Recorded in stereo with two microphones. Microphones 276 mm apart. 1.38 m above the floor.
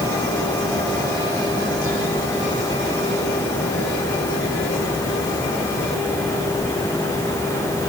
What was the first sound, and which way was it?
Only background noise.